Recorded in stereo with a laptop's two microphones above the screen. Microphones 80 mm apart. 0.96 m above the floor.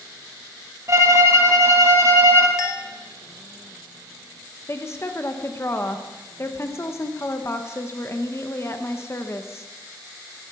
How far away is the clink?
About 1.2 m.